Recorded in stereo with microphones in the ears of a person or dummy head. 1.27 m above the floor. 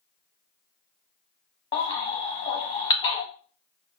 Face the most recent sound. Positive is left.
turn(degrees=30)  # may be behind; listen again after turning